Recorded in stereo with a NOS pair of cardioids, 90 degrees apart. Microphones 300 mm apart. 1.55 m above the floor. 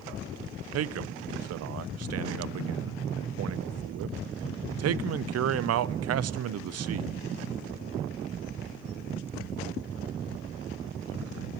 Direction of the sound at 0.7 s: 55° right.